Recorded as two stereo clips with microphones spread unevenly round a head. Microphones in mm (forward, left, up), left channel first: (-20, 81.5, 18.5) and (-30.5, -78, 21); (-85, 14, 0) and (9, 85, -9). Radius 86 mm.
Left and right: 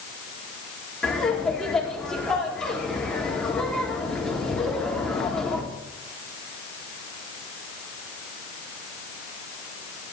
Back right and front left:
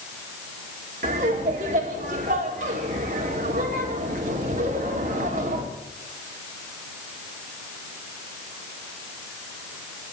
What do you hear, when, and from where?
1.0 s laughter: straight ahead, 3 m